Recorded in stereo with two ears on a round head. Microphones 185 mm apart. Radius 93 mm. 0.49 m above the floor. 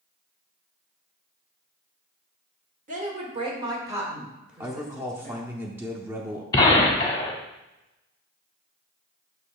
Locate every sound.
2.9 s a woman speaking: 40° right (ahead or behind), 1.5 m; by 5.5 s 5° left (ahead or behind), 2.5 m
4.6 s a man speaking: 10° right (ahead or behind), 0.7 m
6.5 s a gunshot: 20° left (ahead or behind), 1.2 m